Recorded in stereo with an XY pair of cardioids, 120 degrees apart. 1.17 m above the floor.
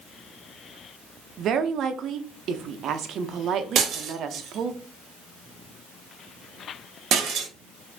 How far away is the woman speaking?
About 0.6 m.